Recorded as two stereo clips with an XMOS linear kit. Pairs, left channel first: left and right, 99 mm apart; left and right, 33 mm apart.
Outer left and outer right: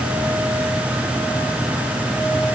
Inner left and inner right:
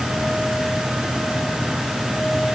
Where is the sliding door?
No sliding door in this recording.